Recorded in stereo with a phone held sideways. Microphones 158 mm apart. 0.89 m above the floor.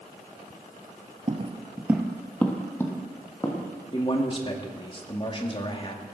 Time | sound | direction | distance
1.3 | footsteps | 40° right (ahead or behind) | 1.1 m
3.9 | a man speaking | 35° left (ahead or behind) | 2 m